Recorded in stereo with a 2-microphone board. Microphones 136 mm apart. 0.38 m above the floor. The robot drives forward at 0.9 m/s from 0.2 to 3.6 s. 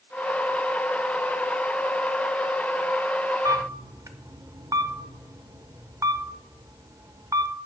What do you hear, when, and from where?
3.5 s a camera shutter: 25° right (ahead or behind), 0.6 m